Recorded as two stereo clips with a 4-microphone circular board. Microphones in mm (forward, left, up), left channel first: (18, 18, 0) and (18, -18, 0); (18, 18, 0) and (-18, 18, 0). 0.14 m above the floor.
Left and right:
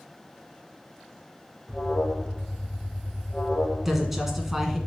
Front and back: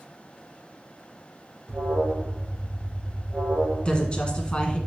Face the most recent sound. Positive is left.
turn(degrees=-15)